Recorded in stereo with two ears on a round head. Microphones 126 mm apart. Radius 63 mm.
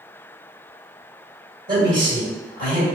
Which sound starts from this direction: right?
A man speaking, at 1.7 s.